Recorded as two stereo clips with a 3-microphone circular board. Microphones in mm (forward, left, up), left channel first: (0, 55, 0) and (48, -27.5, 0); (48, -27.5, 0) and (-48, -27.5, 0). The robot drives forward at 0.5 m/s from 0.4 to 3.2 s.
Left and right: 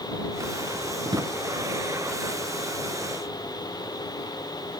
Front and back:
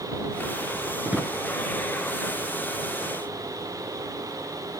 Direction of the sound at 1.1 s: 105° right.